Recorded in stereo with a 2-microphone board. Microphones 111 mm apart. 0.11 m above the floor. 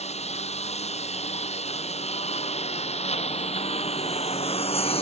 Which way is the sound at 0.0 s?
75° left (ahead or behind).